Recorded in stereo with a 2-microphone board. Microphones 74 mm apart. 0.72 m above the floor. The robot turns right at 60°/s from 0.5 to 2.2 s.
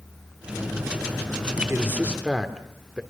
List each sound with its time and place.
1.7 s a man speaking: 40° right, 2.5 m; by 3.0 s 10° right, 2.5 m